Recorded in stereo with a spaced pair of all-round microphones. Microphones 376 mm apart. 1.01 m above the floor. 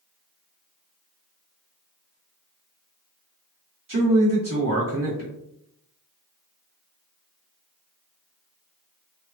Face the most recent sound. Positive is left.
turn(degrees=-55)  # may be behind; listen again after turning